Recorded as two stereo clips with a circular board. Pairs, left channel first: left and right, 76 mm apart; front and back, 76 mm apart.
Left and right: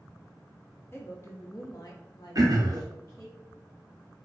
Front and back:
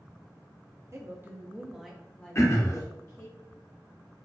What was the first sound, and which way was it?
A woman speaking, 145° left.